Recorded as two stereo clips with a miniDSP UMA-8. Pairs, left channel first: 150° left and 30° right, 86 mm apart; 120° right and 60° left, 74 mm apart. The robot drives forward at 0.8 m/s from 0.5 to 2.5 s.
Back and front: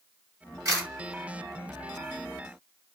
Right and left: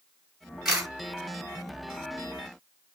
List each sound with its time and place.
0.7 s a camera shutter: 20° right, 2 m